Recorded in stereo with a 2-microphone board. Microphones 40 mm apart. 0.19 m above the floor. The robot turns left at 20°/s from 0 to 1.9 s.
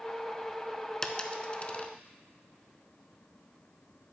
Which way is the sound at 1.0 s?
20° left (ahead or behind).